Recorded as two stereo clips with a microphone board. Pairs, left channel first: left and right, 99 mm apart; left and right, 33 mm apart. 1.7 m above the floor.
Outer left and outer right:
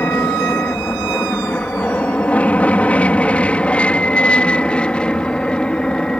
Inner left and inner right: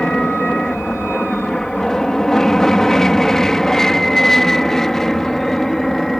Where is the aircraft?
20° left (ahead or behind); by 6.2 s 10° left (ahead or behind).